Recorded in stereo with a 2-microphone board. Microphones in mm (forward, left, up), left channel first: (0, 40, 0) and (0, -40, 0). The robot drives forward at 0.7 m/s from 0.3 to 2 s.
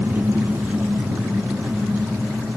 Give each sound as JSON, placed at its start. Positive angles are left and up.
{"t": 0.0, "sound": "an engine running", "side_deg": -25, "distance_m": 1.3}